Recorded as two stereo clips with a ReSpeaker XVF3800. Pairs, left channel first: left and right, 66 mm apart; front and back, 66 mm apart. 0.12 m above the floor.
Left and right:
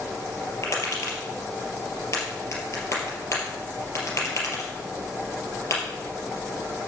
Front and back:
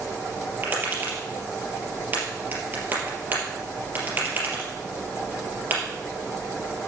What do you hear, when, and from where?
0.6 s tapping: 125° left, 3.5 m